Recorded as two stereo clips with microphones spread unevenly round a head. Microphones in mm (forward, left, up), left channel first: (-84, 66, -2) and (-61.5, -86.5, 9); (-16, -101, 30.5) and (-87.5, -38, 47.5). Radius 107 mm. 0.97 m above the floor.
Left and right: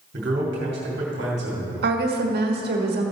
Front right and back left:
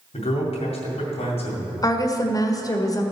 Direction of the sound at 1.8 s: 90° right.